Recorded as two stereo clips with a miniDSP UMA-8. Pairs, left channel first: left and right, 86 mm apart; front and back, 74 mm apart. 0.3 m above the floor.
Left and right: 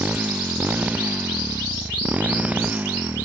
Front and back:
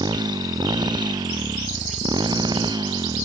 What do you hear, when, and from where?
0.0 s a motorcycle: 160° right